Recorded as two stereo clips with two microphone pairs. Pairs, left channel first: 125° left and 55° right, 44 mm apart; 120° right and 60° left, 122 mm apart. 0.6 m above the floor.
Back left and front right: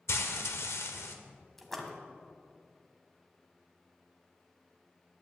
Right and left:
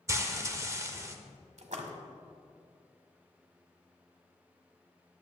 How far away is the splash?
About 1.3 m.